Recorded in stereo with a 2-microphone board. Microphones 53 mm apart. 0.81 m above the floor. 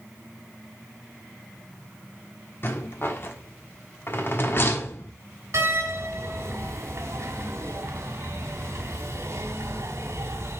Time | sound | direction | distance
2.6 | a rattle | 45° left (ahead or behind) | 1.3 m
5.5 | a door slam | 55° right (ahead or behind) | 1.5 m